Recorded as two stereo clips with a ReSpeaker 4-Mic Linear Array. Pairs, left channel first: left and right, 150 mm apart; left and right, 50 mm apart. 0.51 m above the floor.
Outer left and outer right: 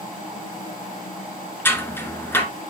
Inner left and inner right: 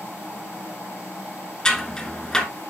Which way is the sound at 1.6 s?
15° left (ahead or behind).